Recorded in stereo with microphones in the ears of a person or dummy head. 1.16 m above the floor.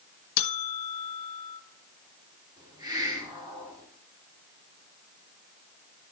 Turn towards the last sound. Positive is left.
turn(degrees=-20)  # may be behind; listen again after turning